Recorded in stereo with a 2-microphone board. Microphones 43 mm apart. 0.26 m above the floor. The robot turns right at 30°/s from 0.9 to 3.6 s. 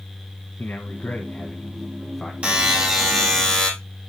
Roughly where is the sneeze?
No sneeze in this recording.